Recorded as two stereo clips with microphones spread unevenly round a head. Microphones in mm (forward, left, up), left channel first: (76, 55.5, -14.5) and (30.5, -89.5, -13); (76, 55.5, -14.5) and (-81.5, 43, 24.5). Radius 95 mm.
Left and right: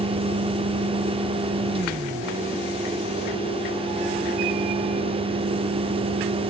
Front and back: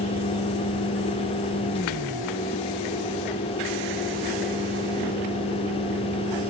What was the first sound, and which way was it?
A fan, 60° right.